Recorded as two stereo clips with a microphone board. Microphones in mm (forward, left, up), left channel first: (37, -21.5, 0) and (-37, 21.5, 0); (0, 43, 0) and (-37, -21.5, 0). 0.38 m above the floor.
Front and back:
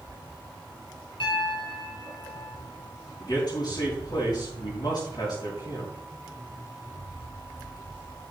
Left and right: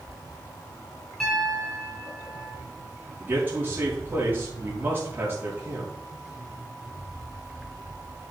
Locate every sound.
1.2 s a piano: 30° right, 3 m
3.2 s a man speaking: 60° right, 4.5 m